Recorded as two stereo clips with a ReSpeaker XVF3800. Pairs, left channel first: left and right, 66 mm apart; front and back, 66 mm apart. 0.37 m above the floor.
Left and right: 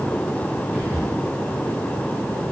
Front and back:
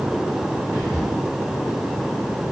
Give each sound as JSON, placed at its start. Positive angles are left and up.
{"t": 0.7, "sound": "whispering", "azimuth_deg": 100, "distance_m": 1.3}